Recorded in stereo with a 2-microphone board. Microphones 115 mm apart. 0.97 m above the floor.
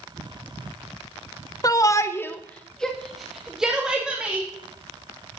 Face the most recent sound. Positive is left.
turn(degrees=-10)  # may be behind; listen again after turning